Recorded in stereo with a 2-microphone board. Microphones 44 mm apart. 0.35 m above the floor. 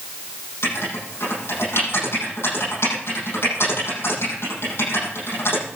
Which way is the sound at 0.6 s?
75° left (ahead or behind).